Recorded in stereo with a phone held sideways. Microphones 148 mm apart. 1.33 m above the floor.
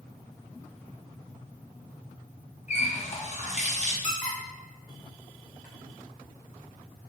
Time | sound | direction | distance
2.7 | a running tap | 50° left (ahead or behind) | 0.7 m
4.0 | a squeak | 55° left (ahead or behind) | 1.0 m